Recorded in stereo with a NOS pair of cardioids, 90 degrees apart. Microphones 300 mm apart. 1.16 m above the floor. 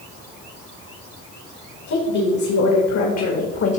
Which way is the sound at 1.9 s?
70° left.